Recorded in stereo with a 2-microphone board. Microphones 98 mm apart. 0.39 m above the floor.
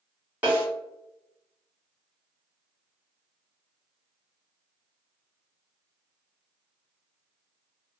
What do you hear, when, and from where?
0.4 s a snare drum: 20° right (ahead or behind), 1.7 m